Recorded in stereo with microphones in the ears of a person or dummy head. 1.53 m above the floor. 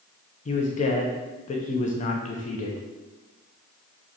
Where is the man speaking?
40° left (ahead or behind), 0.5 m.